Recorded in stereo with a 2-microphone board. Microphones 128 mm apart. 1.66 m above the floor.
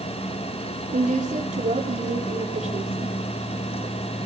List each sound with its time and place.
0.9 s a woman speaking: 85° right, 5 m; by 3.1 s 70° right (ahead or behind), 4 m